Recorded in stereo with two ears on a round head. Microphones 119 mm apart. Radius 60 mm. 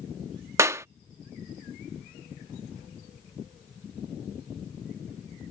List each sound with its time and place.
0.6 s a clap: 20° right (ahead or behind)